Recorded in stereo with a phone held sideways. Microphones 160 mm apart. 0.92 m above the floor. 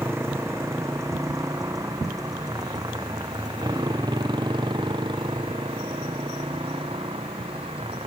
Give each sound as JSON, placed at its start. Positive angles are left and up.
{"t": 0.0, "sound": "a motorcycle", "side_deg": -15}